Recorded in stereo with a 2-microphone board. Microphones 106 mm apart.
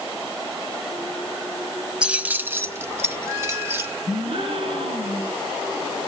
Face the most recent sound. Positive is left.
turn(degrees=-60)  # may be behind; listen again after turning